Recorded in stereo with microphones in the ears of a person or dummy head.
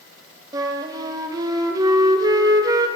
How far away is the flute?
About 0.8 m.